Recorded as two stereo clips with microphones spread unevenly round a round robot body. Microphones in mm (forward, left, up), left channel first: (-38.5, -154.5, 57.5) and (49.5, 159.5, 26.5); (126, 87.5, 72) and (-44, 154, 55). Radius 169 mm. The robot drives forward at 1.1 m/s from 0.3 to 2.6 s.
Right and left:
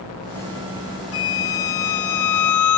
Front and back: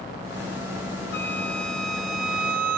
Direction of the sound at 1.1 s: 130° right.